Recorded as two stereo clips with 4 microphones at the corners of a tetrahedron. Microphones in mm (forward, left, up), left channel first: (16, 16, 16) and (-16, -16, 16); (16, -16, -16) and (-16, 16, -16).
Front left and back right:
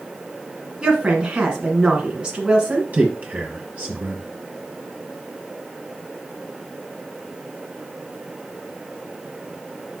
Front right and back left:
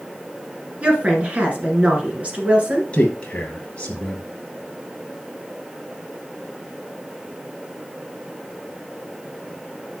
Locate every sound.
0.8 s a woman speaking: 170° left, 1.5 m
2.9 s a man speaking: 100° right, 2.0 m